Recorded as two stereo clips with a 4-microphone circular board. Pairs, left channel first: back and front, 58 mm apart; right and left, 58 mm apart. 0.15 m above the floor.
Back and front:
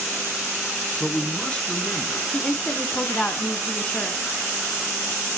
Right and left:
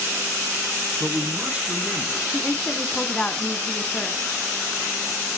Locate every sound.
1.0 s a man speaking: 125° left, 1.3 m
2.3 s a woman speaking: 135° right, 1.3 m